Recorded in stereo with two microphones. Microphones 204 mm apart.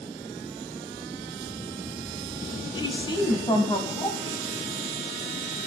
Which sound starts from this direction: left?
A woman speaking, at 2.8 s.